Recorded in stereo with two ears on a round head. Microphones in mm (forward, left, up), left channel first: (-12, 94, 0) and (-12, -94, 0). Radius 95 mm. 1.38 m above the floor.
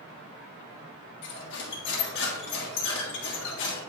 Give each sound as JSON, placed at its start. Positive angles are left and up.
{"t": 1.2, "sound": "cutlery clinking", "side_deg": 60, "distance_m": 1.6}